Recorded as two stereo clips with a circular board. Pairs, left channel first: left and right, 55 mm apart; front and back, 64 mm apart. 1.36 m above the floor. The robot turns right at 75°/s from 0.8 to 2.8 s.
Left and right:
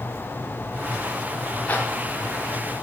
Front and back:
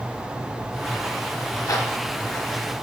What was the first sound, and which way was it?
A zipper, 25° left.